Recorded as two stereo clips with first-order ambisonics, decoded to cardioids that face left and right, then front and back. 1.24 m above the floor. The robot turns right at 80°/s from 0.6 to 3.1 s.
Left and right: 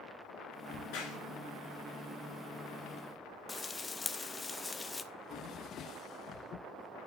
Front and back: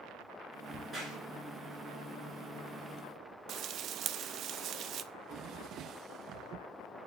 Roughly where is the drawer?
Behind left.